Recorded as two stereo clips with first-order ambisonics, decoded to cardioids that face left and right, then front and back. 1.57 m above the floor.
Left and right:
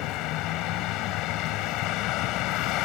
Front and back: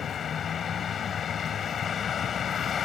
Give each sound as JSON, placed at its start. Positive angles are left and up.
{"t": 0.0, "sound": "a vehicle", "azimuth_deg": 60}